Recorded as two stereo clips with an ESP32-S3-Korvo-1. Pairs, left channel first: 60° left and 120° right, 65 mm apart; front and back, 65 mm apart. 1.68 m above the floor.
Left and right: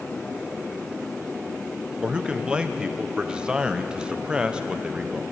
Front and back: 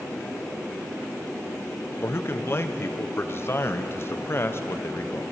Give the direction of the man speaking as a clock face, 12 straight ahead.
2 o'clock.